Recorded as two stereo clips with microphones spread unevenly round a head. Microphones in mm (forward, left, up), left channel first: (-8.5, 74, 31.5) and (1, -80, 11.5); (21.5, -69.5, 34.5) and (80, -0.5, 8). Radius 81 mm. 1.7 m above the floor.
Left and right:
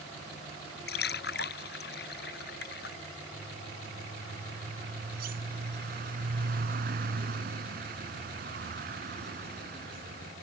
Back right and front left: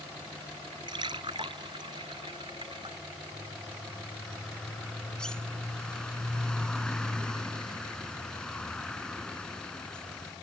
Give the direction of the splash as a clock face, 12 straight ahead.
8 o'clock.